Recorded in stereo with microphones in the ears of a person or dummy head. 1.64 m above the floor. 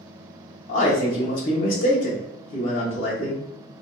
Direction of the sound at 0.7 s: 55° left (ahead or behind).